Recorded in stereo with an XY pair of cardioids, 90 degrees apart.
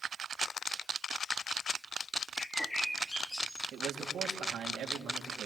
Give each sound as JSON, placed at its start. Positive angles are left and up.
{"t": 2.4, "sound": "a bird", "azimuth_deg": 10, "distance_m": 3.0}
{"t": 3.7, "sound": "a man speaking", "azimuth_deg": -70, "distance_m": 3.5}